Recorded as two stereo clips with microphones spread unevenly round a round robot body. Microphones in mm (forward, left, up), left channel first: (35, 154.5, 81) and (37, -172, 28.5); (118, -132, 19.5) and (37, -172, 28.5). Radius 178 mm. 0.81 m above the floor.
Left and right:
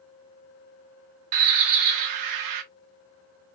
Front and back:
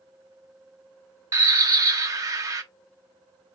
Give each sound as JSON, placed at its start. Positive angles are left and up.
{"t": 1.3, "sound": "a bird", "azimuth_deg": -120, "distance_m": 0.7}